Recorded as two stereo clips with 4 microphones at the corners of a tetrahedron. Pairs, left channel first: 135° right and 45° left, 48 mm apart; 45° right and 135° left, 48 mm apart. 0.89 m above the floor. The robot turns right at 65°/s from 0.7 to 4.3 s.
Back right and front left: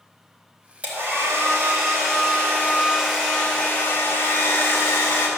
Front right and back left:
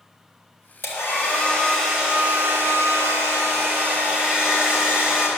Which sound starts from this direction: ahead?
A hair dryer, at 0.8 s.